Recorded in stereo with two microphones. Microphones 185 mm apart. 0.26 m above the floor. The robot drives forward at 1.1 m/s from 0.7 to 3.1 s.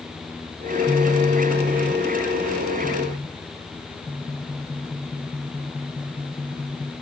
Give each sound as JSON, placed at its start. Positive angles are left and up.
{"t": 0.9, "sound": "a phone buzzing", "side_deg": -30, "distance_m": 0.7}